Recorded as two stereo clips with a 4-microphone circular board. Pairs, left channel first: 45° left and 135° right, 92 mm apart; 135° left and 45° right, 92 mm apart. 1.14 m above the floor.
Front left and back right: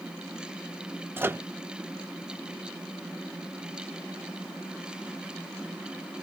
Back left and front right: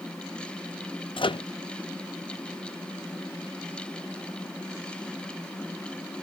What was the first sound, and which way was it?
A microwave, 160° left.